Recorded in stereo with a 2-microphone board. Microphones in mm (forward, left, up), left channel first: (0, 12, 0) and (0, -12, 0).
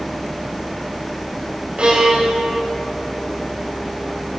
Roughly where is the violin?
Right.